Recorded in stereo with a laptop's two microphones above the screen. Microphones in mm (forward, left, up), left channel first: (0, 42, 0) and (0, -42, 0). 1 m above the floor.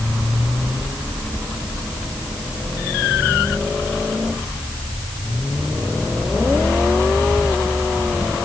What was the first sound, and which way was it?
Only background noise.